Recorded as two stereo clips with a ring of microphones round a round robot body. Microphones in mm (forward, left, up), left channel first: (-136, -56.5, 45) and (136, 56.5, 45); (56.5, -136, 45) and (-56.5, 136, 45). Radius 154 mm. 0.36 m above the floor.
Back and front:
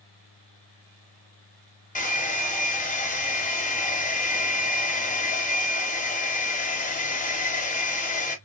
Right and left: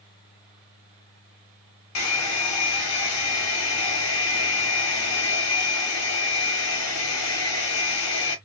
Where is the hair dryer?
95° right, 0.8 m.